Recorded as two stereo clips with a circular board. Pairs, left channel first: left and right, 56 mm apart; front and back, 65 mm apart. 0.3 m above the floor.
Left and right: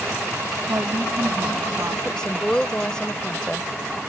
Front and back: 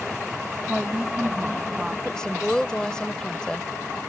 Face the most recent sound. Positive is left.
turn(degrees=50)